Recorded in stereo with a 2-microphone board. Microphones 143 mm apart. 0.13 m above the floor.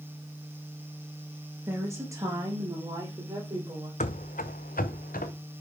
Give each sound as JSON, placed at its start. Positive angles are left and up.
{"t": 1.7, "sound": "a woman speaking", "side_deg": -15, "distance_m": 2.5}
{"t": 4.0, "sound": "running footsteps", "side_deg": 60, "distance_m": 0.6}